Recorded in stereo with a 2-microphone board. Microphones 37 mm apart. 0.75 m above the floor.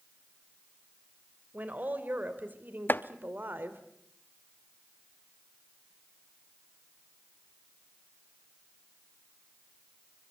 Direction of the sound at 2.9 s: 65° left (ahead or behind).